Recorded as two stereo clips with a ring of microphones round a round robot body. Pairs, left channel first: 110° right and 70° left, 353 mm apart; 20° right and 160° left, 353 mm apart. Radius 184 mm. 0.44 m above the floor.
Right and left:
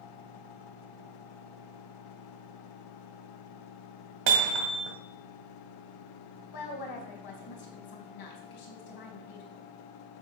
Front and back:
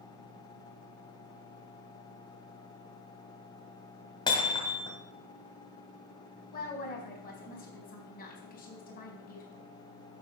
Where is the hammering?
55° left, 1.8 m.